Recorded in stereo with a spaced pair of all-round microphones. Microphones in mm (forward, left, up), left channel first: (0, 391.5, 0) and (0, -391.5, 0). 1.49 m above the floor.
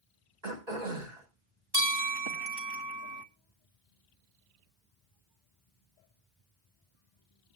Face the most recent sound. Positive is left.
turn(degrees=-30)  # may be behind; listen again after turning